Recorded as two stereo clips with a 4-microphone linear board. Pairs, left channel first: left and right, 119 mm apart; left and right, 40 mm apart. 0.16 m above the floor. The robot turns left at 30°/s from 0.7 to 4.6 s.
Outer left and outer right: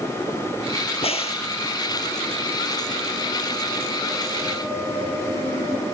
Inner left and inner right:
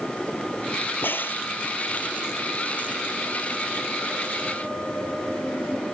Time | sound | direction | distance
1.0 | a crack | 60° left (ahead or behind) | ?